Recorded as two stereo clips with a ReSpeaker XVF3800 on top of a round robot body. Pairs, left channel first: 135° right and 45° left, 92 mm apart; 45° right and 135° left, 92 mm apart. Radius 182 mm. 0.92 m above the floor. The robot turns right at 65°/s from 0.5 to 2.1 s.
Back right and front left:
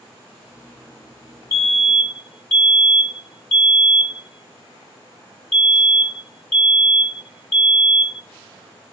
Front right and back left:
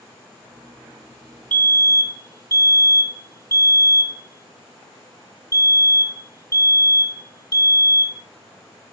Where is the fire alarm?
95° right, 1.7 m; by 8.2 s 60° right, 1.7 m.